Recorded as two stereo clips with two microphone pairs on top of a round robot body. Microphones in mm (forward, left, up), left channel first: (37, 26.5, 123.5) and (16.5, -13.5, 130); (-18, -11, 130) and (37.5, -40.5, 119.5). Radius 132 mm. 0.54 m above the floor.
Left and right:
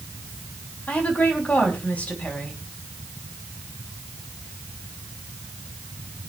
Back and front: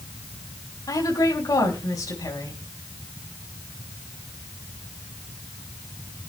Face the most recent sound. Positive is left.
turn(degrees=120)